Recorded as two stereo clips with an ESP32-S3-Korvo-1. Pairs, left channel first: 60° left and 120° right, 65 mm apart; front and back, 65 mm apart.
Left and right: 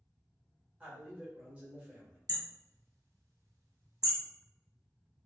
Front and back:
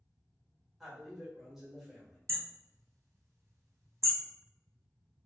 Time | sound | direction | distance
0.8 | a man speaking | 100° right | 0.9 m
2.3 | hammering | 140° right | 0.7 m